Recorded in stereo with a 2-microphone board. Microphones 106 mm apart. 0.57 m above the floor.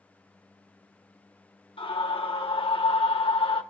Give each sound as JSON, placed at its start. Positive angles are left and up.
{"t": 1.8, "sound": "a scream", "side_deg": 55, "distance_m": 1.3}